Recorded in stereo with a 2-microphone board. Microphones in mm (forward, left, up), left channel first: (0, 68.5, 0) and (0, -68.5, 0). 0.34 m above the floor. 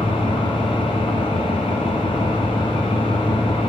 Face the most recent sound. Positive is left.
turn(degrees=40)  # may be behind; listen again after turning